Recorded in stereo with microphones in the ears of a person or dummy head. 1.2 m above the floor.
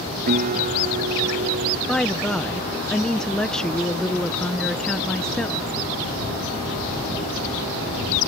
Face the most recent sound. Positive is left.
turn(degrees=5)  # may be behind; listen again after turning